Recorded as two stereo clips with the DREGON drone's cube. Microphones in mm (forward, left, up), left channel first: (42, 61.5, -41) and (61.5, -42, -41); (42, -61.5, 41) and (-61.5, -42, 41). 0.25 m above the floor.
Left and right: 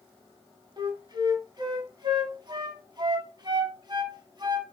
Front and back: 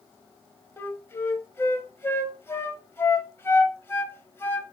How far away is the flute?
About 1.4 m.